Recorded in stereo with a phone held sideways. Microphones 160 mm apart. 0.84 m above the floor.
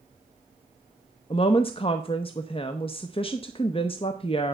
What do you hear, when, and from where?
1.3 s a woman speaking: 35° left (ahead or behind), 0.6 m